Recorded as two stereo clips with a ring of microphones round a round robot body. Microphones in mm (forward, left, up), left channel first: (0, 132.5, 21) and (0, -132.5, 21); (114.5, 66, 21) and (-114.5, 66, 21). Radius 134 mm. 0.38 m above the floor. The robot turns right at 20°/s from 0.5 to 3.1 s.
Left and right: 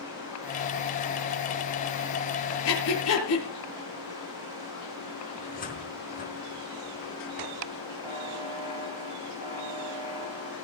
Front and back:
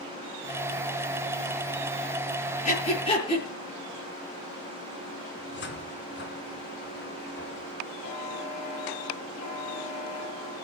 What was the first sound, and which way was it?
Breathing, 55° left.